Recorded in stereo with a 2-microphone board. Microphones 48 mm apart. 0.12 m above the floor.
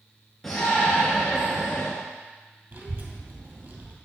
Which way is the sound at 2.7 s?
45° right (ahead or behind).